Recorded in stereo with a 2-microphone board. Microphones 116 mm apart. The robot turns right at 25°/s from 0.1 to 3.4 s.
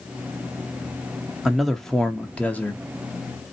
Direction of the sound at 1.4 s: 5° right.